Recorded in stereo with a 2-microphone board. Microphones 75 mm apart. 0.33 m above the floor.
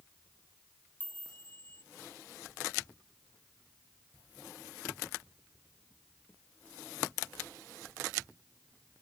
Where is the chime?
25° left (ahead or behind).